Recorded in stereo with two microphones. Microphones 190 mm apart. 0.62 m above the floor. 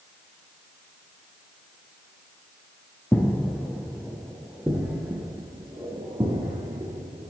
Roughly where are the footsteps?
Centre.